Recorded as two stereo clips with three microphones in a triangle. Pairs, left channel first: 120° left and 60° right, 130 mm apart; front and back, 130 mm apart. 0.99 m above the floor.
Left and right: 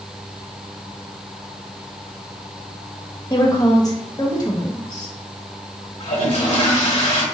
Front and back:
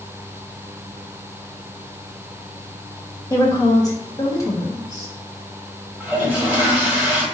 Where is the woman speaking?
60° left, 1.4 m.